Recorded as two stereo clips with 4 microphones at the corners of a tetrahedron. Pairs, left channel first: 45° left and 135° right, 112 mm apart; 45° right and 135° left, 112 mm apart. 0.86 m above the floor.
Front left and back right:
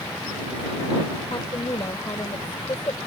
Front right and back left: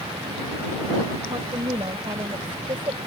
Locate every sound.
1.3 s a woman speaking: 95° left